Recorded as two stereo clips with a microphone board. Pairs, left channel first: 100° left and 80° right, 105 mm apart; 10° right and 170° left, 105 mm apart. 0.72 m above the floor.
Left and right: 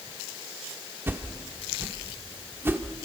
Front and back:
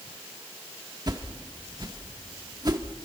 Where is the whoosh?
145° right, 1.6 m.